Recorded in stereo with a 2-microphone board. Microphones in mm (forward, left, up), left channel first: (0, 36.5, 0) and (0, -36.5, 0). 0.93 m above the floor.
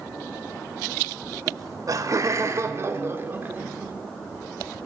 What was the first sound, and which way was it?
Laughter, 55° right (ahead or behind).